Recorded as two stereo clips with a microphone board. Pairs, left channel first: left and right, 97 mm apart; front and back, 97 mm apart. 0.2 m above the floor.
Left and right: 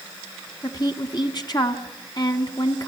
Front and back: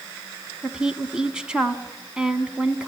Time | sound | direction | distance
0.6 | a woman speaking | 100° left | 1.5 m